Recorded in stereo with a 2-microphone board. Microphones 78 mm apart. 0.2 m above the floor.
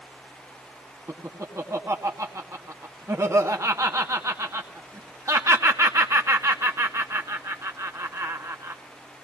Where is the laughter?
40° right (ahead or behind), 2 m.